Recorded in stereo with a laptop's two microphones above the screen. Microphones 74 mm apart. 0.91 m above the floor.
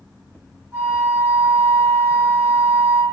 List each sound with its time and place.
0.7 s a flute: 40° right (ahead or behind), 1.1 m